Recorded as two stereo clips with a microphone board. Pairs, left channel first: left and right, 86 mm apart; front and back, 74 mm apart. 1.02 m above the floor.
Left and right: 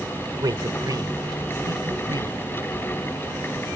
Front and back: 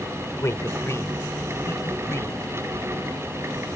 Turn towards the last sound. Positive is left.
turn(degrees=-55)